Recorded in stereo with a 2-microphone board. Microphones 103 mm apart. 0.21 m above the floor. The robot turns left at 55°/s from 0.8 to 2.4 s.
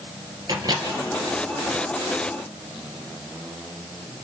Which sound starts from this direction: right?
A microwave, at 0.5 s.